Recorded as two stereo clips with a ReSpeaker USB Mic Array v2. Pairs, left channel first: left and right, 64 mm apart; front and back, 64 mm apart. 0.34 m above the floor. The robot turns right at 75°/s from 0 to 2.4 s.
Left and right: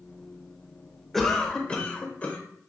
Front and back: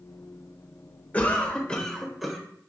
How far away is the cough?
About 0.8 m.